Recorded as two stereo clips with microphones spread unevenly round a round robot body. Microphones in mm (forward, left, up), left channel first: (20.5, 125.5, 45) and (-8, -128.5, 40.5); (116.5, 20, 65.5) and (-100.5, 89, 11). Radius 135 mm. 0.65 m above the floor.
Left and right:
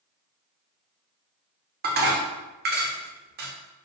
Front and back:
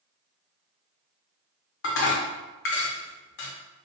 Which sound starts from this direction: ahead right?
Dishes clattering, at 1.8 s.